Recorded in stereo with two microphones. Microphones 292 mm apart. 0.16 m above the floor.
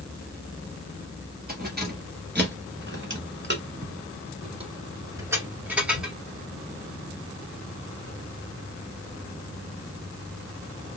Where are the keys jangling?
30° right (ahead or behind), 1.8 m; by 6.2 s centre (ahead or behind), 1.7 m.